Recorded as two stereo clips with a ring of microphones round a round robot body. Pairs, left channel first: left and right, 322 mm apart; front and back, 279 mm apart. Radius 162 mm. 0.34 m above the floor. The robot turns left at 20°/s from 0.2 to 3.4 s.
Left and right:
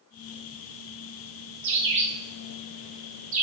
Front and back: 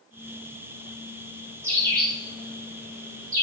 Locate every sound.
1.6 s a bird: 105° right, 0.7 m; by 3.4 s 140° right, 0.7 m